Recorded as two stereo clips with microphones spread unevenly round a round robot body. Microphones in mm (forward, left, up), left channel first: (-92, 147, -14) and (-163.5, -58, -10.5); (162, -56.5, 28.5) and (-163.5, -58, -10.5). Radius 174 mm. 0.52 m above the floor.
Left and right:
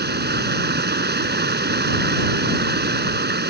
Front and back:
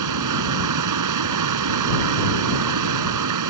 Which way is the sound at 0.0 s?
150° right.